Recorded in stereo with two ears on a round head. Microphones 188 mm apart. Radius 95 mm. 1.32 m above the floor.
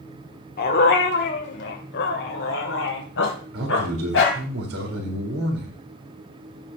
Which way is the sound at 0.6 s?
45° left (ahead or behind).